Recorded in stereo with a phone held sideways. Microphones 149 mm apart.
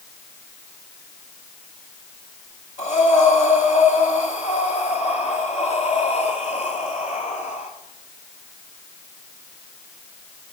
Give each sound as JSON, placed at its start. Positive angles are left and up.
{"t": 2.8, "sound": "breathing", "side_deg": 50, "distance_m": 2.0}